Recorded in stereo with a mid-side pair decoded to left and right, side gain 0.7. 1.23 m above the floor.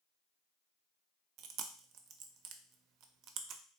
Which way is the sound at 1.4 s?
55° right.